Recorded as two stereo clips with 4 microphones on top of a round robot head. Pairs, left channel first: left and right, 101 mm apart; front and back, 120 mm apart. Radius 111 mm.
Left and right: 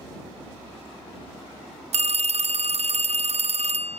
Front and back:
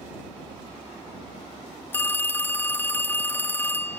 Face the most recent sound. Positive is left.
turn(degrees=-75)